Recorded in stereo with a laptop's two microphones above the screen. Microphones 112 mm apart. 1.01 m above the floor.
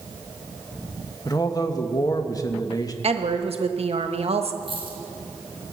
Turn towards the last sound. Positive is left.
turn(degrees=-50)  # may be behind; listen again after turning